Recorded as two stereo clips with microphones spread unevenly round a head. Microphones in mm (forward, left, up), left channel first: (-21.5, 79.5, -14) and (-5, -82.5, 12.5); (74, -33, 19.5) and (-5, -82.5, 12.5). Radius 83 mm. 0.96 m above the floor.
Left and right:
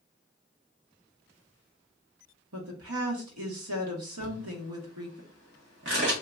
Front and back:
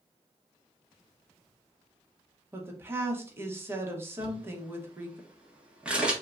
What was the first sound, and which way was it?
A woman speaking, 80° right.